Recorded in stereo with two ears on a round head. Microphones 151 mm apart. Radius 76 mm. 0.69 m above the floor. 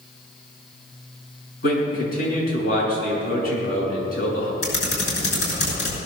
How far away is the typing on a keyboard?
About 6.5 m.